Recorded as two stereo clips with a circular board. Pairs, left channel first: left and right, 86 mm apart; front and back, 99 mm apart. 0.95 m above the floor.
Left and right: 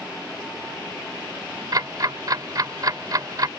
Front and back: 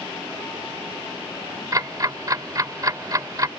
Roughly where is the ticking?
Behind right.